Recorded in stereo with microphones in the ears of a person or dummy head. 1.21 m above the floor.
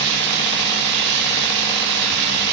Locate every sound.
0.0 s running water: 60° right (ahead or behind), 1.5 m